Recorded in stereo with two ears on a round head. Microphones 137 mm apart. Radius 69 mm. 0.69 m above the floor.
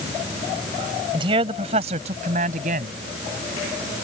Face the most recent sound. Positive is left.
turn(degrees=-55)  # may be behind; listen again after turning